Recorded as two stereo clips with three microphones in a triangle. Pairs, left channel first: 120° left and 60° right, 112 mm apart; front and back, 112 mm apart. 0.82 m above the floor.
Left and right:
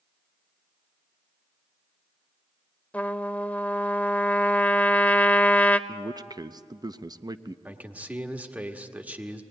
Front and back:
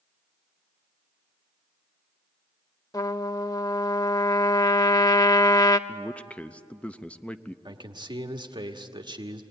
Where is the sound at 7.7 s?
135° right, 1.4 m.